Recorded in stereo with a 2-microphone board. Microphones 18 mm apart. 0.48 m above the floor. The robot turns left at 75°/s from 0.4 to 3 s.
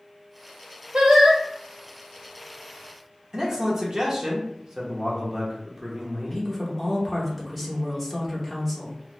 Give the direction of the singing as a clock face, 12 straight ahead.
2 o'clock.